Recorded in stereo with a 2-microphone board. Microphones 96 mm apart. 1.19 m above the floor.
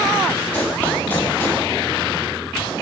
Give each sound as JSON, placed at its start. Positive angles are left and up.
{"t": 0.5, "sound": "running footsteps", "side_deg": 10, "distance_m": 6.5}